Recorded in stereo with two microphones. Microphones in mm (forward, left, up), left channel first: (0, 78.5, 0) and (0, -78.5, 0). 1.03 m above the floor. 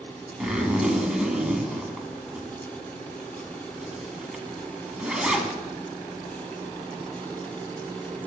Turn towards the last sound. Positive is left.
turn(degrees=-5)  # may be behind; listen again after turning